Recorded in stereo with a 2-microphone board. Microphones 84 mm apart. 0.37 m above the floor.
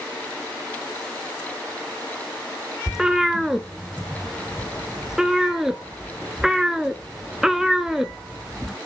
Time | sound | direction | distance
2.9 | a cat meowing | 5° right (ahead or behind) | 0.6 m